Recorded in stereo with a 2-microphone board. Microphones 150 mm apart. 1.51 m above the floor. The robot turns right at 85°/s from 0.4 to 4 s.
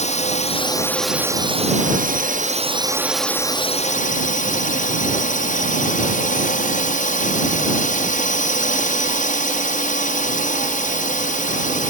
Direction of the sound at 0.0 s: 125° left.